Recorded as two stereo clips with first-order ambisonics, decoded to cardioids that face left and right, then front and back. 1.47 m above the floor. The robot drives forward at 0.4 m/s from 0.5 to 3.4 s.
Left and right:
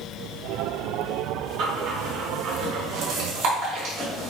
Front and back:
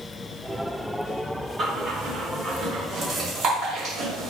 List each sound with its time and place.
1.6 s breathing: 120° right, 3 m; by 4.3 s 130° right, 3.5 m